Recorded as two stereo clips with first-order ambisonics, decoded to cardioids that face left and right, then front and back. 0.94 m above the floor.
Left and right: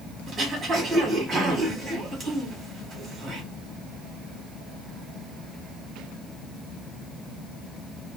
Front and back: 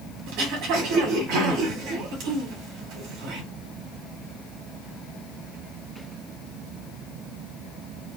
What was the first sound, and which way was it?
Throat clearing, 160° right.